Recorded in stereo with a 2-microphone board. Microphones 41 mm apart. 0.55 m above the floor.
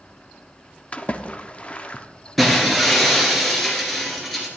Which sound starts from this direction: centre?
Breaking glass, at 2.4 s.